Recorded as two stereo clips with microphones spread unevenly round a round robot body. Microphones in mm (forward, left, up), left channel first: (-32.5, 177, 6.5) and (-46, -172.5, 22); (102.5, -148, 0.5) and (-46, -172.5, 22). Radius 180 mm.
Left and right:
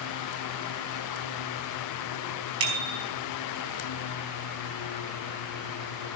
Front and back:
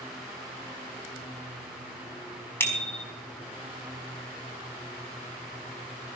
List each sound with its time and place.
2.6 s a bicycle bell: 65° right, 4.5 m